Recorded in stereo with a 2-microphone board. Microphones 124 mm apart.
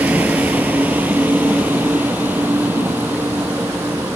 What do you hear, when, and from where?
0.0 s a vehicle: 10° right (ahead or behind); by 4.2 s 15° right (ahead or behind)